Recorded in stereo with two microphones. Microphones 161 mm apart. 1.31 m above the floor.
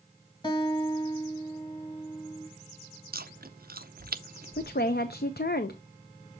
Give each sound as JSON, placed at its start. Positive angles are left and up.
{"t": 0.4, "sound": "a guitar", "side_deg": 25, "distance_m": 1.5}
{"t": 3.1, "sound": "chewing", "side_deg": -65, "distance_m": 0.6}
{"t": 4.6, "sound": "a woman speaking", "side_deg": 75, "distance_m": 0.6}